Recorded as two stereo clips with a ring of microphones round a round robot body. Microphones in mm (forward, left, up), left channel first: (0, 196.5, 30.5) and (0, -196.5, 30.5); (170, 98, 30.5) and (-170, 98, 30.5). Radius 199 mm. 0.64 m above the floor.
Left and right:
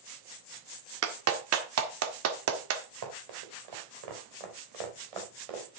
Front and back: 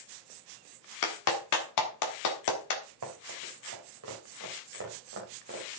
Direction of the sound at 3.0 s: 130° right.